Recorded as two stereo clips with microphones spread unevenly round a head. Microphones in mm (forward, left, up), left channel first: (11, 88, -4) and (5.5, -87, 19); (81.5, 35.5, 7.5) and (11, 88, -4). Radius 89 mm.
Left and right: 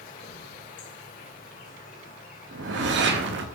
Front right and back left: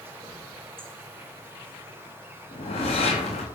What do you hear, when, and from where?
0.0 s an insect: 90° left, 1.3 m
2.5 s a whoosh: 65° right, 0.8 m